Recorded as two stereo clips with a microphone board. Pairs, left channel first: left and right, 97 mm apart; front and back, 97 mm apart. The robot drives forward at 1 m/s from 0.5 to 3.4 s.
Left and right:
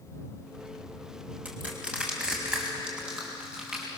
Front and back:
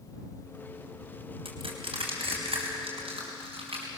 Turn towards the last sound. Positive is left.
turn(degrees=-170)